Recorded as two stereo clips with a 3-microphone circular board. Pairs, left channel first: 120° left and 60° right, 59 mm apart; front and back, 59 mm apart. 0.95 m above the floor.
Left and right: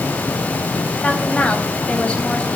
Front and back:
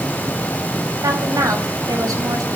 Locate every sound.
1.0 s a woman speaking: 170° right, 5 m